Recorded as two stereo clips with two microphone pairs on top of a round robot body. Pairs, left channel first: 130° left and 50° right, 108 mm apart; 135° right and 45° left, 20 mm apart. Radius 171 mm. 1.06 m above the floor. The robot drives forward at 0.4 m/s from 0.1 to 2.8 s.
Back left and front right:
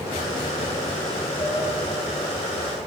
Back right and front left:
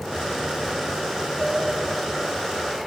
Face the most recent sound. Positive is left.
turn(degrees=115)